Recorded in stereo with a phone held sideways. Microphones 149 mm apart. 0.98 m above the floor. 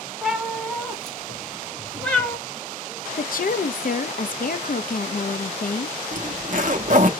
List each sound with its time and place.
0.2 s a cat meowing: centre (ahead or behind), 2.0 m; by 2.4 s 10° left (ahead or behind), 0.9 m
3.2 s a woman speaking: 70° left (ahead or behind), 0.6 m
6.1 s a zipper: 60° right (ahead or behind), 0.8 m